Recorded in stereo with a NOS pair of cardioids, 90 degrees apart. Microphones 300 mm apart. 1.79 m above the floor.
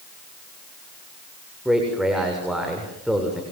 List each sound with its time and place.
1.6 s a man speaking: straight ahead, 7 m